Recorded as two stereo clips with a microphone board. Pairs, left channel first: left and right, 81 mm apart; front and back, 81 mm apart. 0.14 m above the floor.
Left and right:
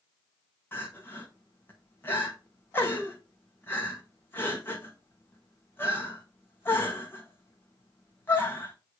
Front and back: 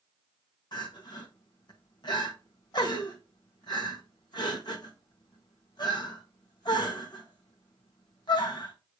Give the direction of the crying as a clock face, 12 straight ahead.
11 o'clock.